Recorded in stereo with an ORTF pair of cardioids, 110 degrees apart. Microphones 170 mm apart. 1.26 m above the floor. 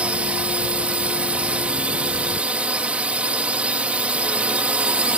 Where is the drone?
10° right.